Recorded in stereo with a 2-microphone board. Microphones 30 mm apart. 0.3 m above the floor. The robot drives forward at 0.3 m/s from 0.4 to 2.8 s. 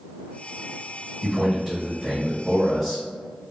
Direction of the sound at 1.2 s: 5° left (ahead or behind).